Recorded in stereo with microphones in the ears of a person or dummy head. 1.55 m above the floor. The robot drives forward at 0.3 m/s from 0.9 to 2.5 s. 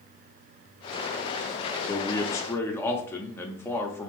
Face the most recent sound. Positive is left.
turn(degrees=15)  # may be behind; listen again after turning